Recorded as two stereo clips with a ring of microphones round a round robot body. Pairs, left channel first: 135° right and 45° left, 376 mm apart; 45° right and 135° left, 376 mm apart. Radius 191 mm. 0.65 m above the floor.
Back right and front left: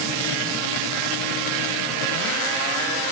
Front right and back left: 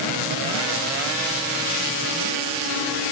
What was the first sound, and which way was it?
Only background noise.